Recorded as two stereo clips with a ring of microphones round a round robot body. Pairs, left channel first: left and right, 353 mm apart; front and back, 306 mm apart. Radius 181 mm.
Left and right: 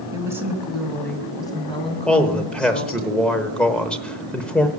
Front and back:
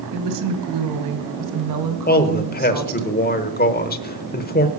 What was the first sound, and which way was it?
A woman speaking, 170° right.